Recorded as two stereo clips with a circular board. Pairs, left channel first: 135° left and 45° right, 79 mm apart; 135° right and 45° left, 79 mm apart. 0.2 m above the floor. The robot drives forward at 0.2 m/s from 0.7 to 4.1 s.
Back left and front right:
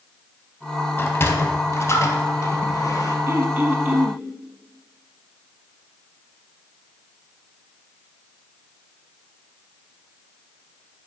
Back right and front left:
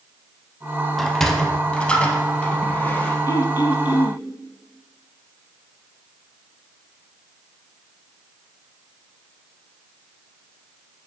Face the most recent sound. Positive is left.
turn(degrees=-120)